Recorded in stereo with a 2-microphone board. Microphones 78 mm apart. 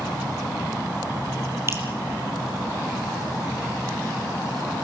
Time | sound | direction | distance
1.7 | dripping | 35° right (ahead or behind) | 3.5 m